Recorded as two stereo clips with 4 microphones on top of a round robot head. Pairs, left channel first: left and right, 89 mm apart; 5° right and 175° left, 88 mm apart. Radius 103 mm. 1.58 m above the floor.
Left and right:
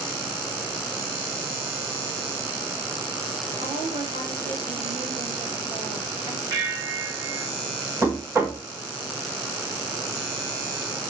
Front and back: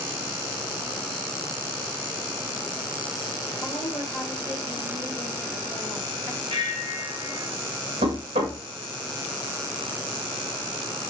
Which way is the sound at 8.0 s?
155° right.